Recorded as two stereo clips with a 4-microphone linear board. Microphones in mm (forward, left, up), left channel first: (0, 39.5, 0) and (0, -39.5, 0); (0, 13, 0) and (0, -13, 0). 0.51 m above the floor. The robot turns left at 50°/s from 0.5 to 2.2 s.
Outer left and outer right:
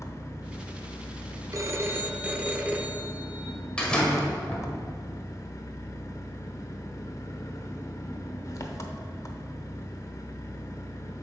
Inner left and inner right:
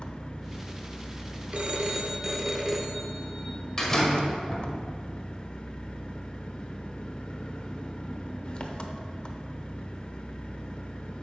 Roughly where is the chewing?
No chewing in this recording.